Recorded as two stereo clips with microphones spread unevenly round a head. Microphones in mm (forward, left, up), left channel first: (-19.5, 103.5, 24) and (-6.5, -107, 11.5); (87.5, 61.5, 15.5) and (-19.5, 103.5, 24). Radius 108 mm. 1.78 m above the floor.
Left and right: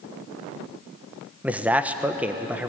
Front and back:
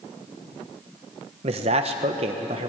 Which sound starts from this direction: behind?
A man speaking, at 1.4 s.